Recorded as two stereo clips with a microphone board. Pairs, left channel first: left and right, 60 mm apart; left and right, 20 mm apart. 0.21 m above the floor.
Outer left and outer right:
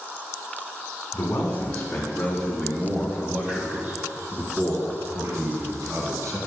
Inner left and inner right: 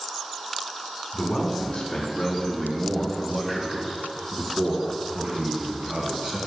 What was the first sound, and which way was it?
A man speaking, 25° left (ahead or behind).